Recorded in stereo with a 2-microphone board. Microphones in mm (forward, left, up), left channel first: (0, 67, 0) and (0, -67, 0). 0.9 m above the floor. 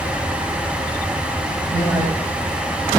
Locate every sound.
1.7 s a man speaking: 25° right (ahead or behind), 4.5 m